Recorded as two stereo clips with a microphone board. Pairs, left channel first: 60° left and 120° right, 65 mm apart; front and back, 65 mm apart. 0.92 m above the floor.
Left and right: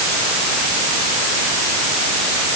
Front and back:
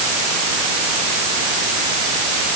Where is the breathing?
No breathing in this recording.